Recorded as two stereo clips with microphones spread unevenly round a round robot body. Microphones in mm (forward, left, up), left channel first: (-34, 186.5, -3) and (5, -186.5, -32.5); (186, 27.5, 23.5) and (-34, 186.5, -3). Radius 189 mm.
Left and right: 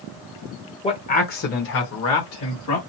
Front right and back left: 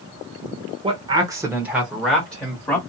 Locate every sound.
0.8 s a man speaking: 165° left, 0.9 m; by 2.8 s 50° left, 1.4 m